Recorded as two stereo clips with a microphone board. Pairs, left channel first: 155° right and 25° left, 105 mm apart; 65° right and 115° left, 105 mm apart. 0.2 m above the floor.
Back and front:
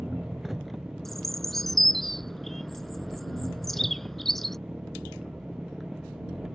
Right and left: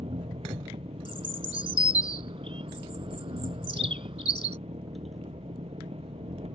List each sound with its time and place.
0.0 s an engine running: 110° left
1.1 s a bird: 115° left